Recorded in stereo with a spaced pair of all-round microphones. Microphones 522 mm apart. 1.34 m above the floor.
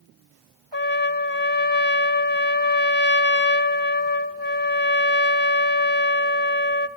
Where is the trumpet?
50° right (ahead or behind), 1.5 m.